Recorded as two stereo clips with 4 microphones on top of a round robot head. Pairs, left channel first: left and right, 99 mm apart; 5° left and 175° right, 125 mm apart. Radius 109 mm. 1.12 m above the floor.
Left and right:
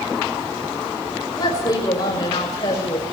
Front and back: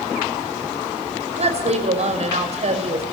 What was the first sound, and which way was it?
A woman speaking, 150° left.